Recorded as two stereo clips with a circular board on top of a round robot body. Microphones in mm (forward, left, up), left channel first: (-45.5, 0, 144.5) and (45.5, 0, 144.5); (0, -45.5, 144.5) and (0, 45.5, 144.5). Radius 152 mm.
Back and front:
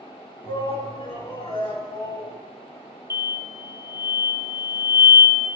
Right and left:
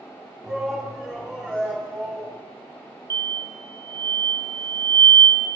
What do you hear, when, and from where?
0.4 s a shout: straight behind, 3 m; by 2.4 s 170° right, 4 m
3.1 s an explosion: 50° left, 1.0 m